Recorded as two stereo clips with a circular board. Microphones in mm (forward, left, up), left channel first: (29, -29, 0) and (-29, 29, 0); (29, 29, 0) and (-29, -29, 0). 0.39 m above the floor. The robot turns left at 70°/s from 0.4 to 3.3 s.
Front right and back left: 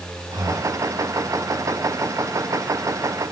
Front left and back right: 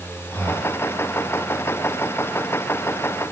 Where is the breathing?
115° left, 5 m; by 0.8 s 85° left, 5 m.